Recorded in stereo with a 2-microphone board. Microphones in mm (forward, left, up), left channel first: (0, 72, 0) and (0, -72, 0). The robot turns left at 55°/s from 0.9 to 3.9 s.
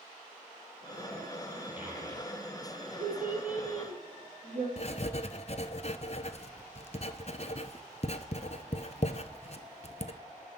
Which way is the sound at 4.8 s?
50° left (ahead or behind).